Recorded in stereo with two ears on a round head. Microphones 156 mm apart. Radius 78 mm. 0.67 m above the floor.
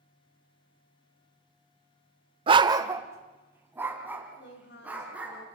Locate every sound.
2.5 s a dog barking: 30° right (ahead or behind), 0.7 m; by 5.4 s 10° right (ahead or behind), 4.5 m
4.4 s a woman speaking: 65° left (ahead or behind), 3 m